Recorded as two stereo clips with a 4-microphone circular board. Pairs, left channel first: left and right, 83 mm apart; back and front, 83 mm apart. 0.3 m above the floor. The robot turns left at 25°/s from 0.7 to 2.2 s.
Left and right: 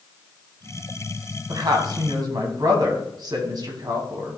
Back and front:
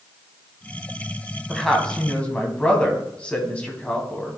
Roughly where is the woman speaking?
Right.